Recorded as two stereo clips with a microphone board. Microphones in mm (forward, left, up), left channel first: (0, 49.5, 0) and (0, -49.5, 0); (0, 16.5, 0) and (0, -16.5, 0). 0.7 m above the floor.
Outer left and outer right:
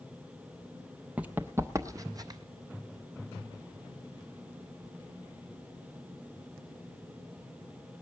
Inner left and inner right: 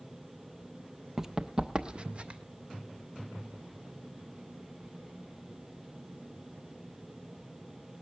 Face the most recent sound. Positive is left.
turn(degrees=-40)  # may be behind; listen again after turning